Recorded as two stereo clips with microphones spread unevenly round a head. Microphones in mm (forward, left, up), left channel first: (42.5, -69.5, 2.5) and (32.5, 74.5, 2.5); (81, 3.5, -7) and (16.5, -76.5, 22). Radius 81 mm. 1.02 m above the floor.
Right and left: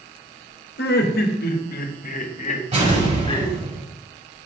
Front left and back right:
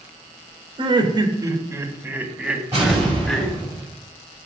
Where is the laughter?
85° right, 1.8 m; by 3.5 s 30° right, 2.5 m.